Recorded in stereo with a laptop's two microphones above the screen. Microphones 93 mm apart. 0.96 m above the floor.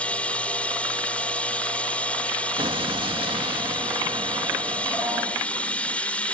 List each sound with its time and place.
0.0 s running water: 15° left (ahead or behind)
2.6 s an explosion: 65° right (ahead or behind)